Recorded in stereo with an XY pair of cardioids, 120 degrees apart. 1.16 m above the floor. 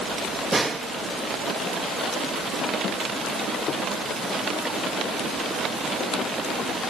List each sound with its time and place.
0.5 s a snare drum: 20° right, 2 m